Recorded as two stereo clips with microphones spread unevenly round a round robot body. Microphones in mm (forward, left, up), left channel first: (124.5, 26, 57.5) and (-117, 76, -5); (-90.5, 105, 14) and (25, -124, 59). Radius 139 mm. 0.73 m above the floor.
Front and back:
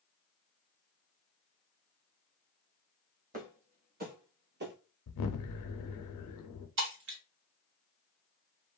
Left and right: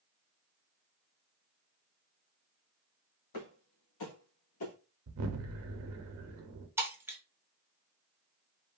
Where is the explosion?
30° right, 0.6 m.